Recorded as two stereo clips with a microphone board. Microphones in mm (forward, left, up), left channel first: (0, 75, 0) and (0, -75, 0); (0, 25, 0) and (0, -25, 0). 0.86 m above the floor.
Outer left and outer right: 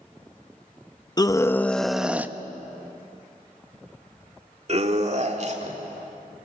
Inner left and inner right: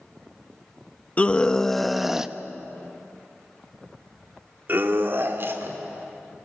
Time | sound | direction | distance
1.2 | a scream | 25° left (ahead or behind) | 0.8 m